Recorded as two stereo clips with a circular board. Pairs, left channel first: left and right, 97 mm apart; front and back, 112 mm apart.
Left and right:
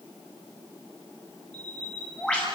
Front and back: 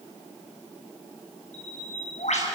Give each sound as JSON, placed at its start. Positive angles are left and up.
{"t": 1.5, "sound": "a bird", "azimuth_deg": 10, "distance_m": 6.5}